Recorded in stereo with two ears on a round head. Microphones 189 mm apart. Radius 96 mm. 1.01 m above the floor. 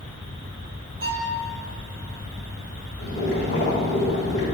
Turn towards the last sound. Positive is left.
turn(degrees=50)  # may be behind; listen again after turning